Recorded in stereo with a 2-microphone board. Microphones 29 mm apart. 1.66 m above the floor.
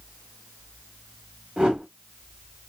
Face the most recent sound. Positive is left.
turn(degrees=-40)  # may be behind; listen again after turning